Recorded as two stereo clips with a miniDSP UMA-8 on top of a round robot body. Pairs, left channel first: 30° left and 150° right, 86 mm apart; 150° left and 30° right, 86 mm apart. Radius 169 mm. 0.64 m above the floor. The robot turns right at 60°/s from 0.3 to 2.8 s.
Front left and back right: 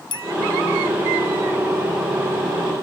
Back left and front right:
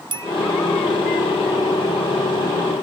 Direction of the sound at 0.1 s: Straight ahead.